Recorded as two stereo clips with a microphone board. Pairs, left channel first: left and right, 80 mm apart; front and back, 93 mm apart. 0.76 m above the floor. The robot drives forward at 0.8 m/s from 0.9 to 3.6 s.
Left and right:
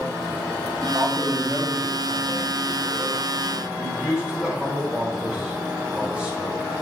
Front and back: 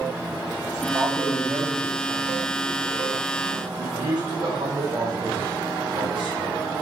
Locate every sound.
0.8 s a man speaking: 130° right, 1.5 m; by 6.7 s 165° right, 3 m